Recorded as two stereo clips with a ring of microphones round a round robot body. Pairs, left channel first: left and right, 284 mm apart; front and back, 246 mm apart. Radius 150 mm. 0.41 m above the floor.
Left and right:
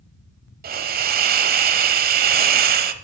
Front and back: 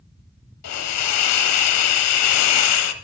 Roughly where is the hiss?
Ahead right.